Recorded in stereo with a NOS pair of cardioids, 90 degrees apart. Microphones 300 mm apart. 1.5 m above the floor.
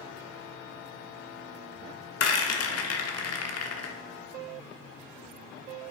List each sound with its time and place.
2.2 s a rattle: 60° left, 1.6 m